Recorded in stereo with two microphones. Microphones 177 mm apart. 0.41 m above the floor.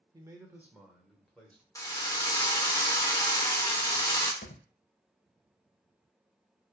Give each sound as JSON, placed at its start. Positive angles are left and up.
{"t": 0.1, "sound": "a man speaking", "side_deg": -20, "distance_m": 0.8}
{"t": 1.8, "sound": "a drill", "side_deg": 20, "distance_m": 0.8}
{"t": 4.4, "sound": "a thud", "side_deg": 80, "distance_m": 0.6}